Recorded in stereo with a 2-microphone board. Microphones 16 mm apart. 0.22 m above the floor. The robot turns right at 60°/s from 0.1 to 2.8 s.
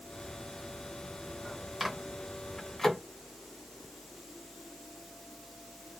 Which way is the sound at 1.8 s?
20° right (ahead or behind).